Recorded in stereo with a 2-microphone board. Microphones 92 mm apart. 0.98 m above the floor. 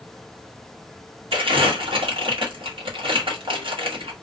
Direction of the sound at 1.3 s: 70° right (ahead or behind).